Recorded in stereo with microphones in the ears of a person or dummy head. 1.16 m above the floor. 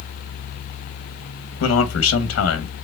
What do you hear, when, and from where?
1.6 s a man speaking: 65° left (ahead or behind), 1.0 m